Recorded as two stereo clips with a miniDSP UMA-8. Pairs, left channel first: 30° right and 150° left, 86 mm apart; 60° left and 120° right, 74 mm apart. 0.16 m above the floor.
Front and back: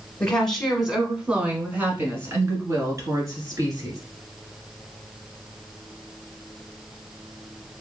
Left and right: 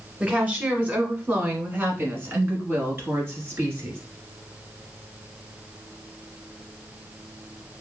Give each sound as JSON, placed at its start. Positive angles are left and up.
{"t": 0.2, "sound": "a woman speaking", "azimuth_deg": -90, "distance_m": 1.1}